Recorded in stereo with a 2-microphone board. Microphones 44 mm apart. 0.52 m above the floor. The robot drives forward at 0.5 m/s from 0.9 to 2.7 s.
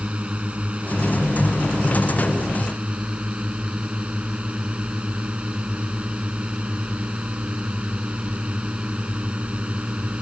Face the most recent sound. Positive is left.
turn(degrees=-25)  # may be behind; listen again after turning